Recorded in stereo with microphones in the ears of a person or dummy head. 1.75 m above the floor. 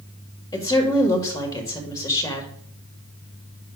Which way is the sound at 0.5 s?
20° left (ahead or behind).